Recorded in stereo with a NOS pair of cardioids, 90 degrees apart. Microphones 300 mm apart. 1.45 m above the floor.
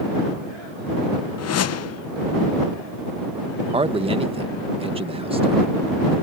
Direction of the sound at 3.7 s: 20° right.